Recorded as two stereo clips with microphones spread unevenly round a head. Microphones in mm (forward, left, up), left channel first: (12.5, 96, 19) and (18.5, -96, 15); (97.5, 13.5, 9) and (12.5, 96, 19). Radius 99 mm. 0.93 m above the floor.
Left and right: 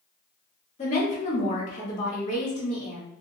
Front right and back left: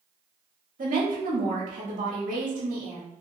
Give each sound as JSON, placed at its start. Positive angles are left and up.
{"t": 0.8, "sound": "a woman speaking", "azimuth_deg": 150, "distance_m": 1.7}